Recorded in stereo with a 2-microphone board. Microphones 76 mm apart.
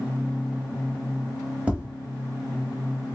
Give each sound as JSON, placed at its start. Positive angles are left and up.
{"t": 1.7, "sound": "tapping", "side_deg": -20, "distance_m": 1.1}